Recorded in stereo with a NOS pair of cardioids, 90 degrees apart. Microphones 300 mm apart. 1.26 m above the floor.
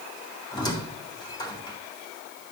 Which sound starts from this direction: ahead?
A squeak, at 0.5 s.